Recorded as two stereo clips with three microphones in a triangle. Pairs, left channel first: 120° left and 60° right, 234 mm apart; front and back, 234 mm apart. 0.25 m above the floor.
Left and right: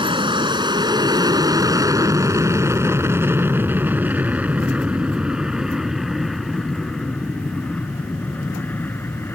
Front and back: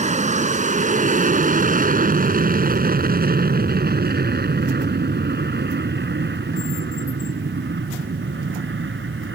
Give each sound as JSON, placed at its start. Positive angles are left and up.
{"t": 0.0, "sound": "an aircraft", "azimuth_deg": -125}